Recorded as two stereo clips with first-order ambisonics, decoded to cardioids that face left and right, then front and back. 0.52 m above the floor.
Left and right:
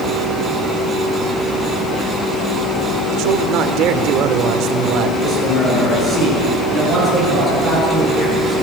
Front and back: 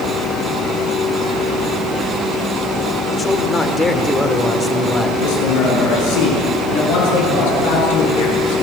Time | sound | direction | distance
3.1 | a man speaking | 70° right | 1.7 m
5.2 | a man speaking | 10° left | 8 m